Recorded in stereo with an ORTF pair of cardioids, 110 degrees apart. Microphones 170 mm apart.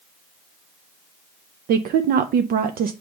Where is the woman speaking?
60° right, 0.5 m.